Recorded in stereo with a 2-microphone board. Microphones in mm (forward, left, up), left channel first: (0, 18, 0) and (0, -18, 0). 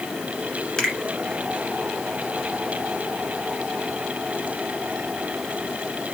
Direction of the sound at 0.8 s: 15° left (ahead or behind).